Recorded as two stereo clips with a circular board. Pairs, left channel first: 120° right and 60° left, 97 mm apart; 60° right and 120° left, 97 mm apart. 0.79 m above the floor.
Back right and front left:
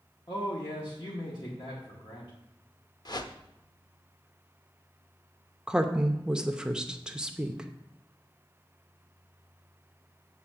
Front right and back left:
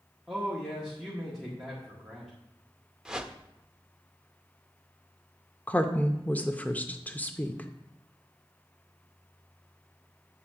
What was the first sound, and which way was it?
A man speaking, 150° right.